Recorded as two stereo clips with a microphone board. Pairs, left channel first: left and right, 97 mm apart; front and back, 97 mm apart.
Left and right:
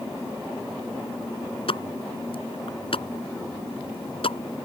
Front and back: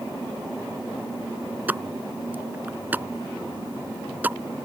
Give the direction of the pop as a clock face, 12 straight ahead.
8 o'clock.